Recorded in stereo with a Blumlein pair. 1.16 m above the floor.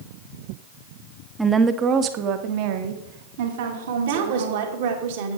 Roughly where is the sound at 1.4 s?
Ahead.